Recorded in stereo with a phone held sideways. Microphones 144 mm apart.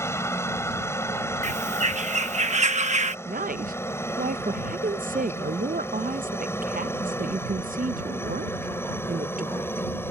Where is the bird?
55° right (ahead or behind).